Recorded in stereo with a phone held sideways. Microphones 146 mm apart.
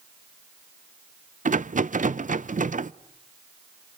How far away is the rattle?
About 0.5 m.